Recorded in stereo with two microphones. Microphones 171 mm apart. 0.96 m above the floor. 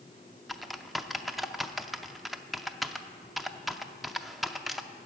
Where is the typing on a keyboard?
Centre (ahead or behind), 0.5 m.